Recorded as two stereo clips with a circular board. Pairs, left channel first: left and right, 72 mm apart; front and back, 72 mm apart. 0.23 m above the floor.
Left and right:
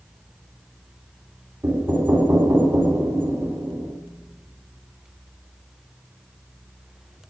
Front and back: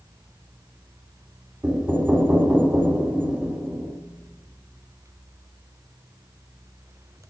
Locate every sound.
1.6 s knocking: 125° right, 1.6 m